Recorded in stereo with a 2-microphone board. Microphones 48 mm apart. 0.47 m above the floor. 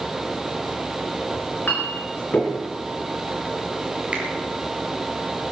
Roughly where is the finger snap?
Right.